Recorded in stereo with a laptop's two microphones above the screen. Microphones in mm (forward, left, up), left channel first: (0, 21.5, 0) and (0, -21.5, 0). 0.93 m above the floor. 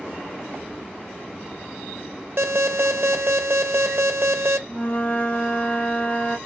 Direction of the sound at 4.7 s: 40° left (ahead or behind).